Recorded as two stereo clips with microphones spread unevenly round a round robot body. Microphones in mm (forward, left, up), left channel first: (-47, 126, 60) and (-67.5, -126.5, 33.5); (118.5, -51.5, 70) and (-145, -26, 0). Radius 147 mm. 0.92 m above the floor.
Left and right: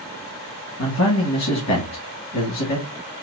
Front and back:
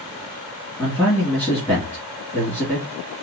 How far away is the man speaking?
About 1.7 m.